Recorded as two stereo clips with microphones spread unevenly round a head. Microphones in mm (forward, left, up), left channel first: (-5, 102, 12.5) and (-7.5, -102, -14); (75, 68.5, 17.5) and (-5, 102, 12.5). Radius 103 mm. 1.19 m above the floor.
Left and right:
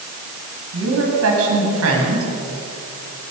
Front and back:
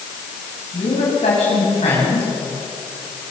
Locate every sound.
0.7 s a woman speaking: 65° right, 8.5 m